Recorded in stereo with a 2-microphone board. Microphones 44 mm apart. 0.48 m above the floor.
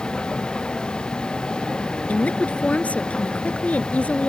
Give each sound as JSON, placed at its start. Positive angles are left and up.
{"t": 0.0, "sound": "a vehicle", "side_deg": 20}
{"t": 2.1, "sound": "a woman speaking", "side_deg": 30}